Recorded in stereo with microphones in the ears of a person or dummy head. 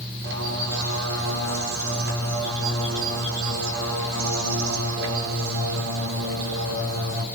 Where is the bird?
70° right (ahead or behind), 5 m.